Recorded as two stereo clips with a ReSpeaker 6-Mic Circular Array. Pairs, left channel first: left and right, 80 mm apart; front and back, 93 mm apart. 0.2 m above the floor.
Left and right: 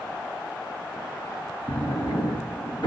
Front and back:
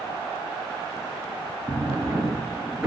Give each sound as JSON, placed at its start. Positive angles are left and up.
{"t": 1.7, "sound": "a drawer", "azimuth_deg": 100, "distance_m": 1.8}